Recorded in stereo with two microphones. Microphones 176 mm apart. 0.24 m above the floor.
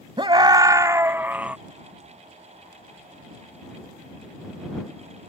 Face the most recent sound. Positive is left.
turn(degrees=-5)  # may be behind; listen again after turning